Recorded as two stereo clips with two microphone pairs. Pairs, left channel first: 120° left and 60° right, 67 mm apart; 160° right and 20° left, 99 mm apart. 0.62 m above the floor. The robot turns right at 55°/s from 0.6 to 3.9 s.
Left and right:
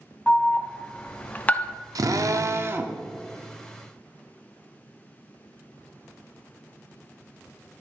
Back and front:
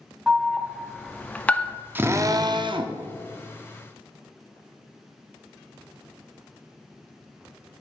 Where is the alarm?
90° left, 0.5 m; by 1.8 s 155° left, 0.5 m.